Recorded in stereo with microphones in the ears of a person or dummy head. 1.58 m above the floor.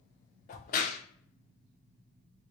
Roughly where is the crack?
Left.